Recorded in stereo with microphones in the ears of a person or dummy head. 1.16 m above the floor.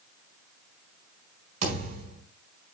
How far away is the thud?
About 4 m.